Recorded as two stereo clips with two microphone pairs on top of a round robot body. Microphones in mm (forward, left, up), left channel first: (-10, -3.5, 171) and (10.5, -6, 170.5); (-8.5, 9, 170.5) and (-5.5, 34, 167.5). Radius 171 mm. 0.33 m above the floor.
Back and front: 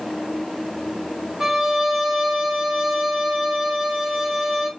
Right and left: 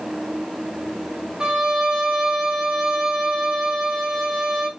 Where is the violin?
55° left, 2 m.